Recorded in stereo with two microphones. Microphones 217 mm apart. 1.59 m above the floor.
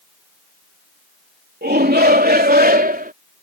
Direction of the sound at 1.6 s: 50° right (ahead or behind).